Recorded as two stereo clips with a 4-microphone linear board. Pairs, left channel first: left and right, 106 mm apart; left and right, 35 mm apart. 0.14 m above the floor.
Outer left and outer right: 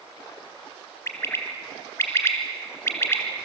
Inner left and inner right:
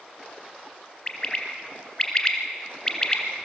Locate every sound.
1.1 s a bird: 25° left (ahead or behind), 1.7 m